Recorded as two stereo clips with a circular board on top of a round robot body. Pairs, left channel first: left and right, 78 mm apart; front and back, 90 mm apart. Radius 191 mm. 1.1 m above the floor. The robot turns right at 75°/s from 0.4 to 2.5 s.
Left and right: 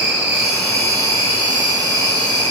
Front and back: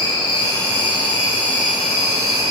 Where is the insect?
10° right, 2 m; by 2.5 s 150° left, 2 m.